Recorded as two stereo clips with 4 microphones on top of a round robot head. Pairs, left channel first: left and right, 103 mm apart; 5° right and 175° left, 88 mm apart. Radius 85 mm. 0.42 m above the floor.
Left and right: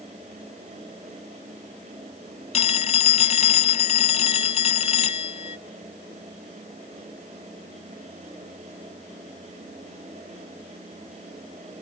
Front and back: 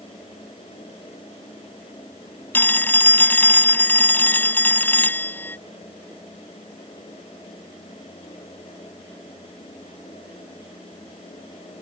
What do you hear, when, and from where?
2.5 s a phone ringing: 65° left